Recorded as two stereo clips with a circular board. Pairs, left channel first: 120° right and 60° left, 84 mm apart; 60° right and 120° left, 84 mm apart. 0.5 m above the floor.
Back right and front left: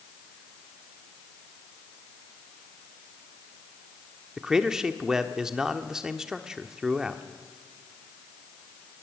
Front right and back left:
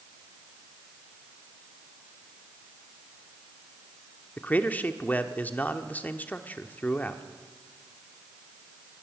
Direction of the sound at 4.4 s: 15° right.